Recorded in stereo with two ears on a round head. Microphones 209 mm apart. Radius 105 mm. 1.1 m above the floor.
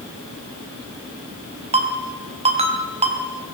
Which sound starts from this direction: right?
A ringtone, at 1.7 s.